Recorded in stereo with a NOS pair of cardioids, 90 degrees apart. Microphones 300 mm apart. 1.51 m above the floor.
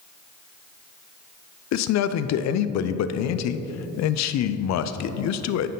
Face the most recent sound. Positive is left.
turn(degrees=60)